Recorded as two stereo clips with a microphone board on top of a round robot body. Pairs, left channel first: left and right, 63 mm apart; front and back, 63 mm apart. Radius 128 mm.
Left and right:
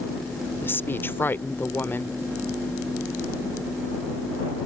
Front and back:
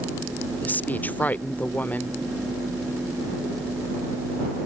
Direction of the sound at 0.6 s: 50° left.